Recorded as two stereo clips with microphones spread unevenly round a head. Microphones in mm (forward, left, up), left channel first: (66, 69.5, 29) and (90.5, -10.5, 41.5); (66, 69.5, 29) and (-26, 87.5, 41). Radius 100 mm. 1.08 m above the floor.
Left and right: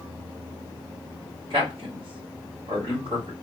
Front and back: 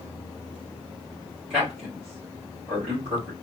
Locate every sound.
1.5 s a man speaking: 115° right, 1.9 m